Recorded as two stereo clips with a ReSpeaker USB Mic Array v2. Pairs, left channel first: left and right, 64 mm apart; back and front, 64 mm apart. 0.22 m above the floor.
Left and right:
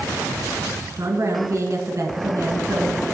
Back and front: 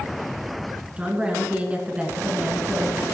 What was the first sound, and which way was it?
A woman speaking, 65° right.